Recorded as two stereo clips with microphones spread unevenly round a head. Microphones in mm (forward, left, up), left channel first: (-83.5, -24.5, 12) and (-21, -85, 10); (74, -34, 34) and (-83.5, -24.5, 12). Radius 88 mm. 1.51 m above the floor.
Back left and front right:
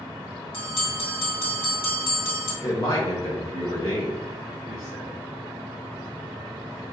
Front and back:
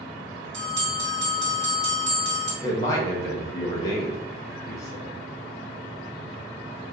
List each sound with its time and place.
0.5 s a bell: 150° left, 1.9 m
2.6 s a man speaking: 65° left, 1.0 m